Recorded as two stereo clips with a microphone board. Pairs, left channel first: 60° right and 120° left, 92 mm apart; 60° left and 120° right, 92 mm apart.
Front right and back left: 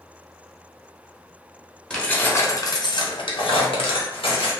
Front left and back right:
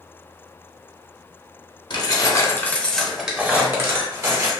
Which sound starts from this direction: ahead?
Keys jangling, at 1.9 s.